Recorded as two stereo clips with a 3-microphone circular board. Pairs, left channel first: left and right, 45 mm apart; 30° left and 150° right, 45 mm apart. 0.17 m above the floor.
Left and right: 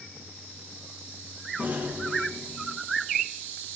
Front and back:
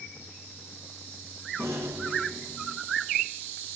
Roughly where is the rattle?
Behind right.